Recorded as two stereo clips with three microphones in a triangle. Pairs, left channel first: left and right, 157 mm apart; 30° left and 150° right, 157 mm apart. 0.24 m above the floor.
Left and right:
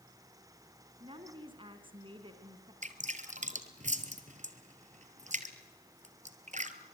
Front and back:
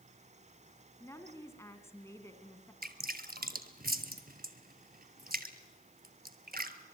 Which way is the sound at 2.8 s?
130° right.